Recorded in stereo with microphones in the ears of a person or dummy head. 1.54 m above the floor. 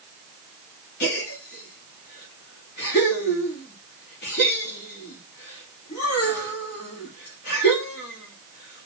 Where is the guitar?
I don't hear a guitar.